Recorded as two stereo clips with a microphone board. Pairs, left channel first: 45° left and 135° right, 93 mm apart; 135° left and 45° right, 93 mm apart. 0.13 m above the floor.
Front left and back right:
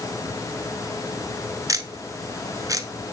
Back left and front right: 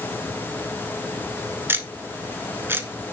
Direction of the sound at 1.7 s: 100° right.